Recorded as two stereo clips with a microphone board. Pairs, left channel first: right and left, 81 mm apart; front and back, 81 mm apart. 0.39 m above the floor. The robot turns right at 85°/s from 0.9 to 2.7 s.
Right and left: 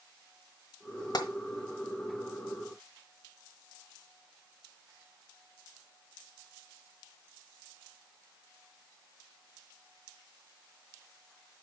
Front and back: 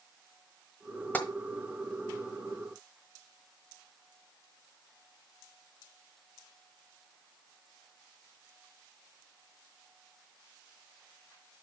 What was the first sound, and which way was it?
Tapping, 70° right.